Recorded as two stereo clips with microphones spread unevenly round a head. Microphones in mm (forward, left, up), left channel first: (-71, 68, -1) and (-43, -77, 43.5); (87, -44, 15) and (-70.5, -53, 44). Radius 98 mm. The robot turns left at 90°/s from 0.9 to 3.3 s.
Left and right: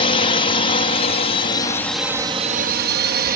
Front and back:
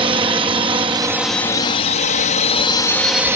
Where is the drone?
120° left; by 3.4 s 95° right.